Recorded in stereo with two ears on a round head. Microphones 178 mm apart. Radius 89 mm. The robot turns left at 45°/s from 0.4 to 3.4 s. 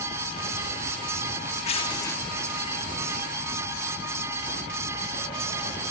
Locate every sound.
1.6 s tearing paper: 35° left (ahead or behind), 1.5 m; by 2.2 s 10° left (ahead or behind), 1.5 m